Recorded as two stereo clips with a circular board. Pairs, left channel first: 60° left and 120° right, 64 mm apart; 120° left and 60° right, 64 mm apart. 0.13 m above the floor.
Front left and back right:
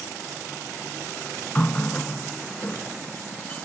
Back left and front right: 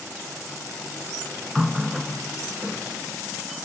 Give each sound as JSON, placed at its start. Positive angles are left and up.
{"t": 1.6, "sound": "a running tap", "azimuth_deg": 30, "distance_m": 1.0}